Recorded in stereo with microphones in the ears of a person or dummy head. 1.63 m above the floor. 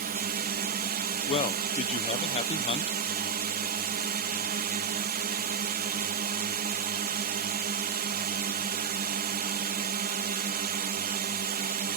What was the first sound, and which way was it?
A drone, 45° right (ahead or behind).